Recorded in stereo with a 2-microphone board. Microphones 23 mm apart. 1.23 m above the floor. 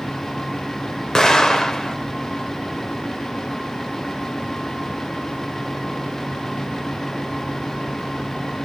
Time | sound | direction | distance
1.1 | an explosion | 20° left (ahead or behind) | 1.0 m